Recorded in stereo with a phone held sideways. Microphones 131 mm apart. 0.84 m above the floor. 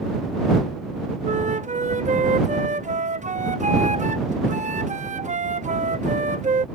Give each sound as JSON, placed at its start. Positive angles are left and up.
{"t": 1.2, "sound": "a flute", "side_deg": -70}